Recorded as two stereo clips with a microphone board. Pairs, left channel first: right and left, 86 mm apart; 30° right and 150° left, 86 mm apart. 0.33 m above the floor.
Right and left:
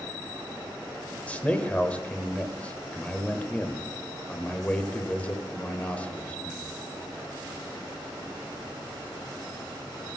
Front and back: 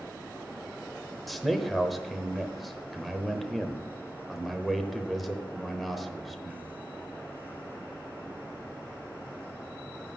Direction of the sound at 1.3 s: 120° right.